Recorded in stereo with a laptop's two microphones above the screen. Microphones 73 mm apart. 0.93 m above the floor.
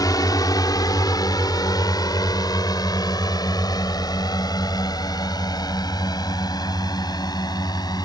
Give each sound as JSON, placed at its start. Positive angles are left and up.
{"t": 0.0, "sound": "a drone", "side_deg": 60}